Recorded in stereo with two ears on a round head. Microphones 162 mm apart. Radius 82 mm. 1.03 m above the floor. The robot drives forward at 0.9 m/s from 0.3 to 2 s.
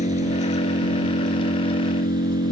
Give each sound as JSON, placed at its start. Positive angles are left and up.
{"t": 0.0, "sound": "an engine running", "side_deg": 40}